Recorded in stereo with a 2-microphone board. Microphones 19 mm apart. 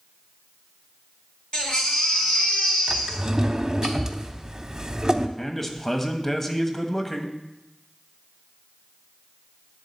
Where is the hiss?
No hiss in this recording.